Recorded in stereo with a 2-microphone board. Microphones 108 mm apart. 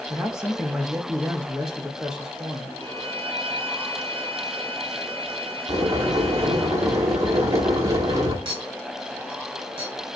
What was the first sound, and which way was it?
A man speaking, 5° right (ahead or behind).